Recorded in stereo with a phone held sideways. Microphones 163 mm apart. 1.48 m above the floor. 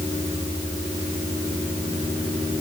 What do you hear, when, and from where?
Only background noise.